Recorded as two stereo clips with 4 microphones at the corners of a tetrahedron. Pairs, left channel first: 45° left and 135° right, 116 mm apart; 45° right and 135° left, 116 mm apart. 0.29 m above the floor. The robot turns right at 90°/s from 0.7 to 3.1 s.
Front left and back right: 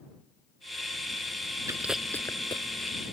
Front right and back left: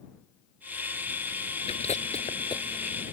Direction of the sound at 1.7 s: 70° right.